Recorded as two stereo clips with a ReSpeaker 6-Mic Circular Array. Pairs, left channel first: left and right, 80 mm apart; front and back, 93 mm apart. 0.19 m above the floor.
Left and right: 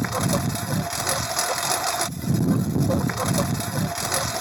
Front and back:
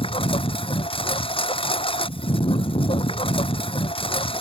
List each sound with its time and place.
0.0 s a lawn mower: straight ahead